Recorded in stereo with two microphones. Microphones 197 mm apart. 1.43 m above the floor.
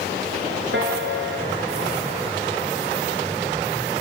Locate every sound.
0.7 s a piano: 65° right (ahead or behind), 4 m